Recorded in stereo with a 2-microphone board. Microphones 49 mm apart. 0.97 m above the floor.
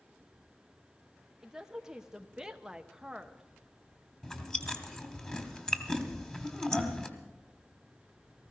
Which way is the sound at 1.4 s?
10° right (ahead or behind).